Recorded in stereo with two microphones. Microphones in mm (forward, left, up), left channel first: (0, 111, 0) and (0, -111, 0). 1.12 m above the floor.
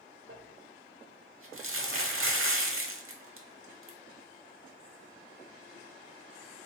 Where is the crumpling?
70° right (ahead or behind), 0.7 m.